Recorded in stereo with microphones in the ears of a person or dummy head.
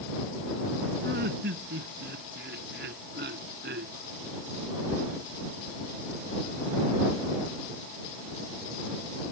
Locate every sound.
1.0 s laughter: 55° right (ahead or behind)